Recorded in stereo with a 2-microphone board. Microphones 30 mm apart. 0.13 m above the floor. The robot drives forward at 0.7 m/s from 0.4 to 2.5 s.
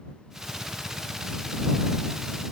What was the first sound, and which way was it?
Only background noise.